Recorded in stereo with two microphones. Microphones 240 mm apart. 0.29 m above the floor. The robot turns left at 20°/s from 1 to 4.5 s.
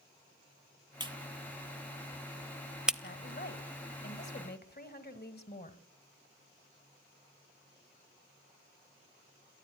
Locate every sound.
1.0 s a clap: 20° right (ahead or behind), 0.9 m; by 2.9 s 5° right (ahead or behind), 0.9 m
3.0 s a woman speaking: 45° left (ahead or behind), 1.5 m; by 5.8 s 40° left (ahead or behind), 1.5 m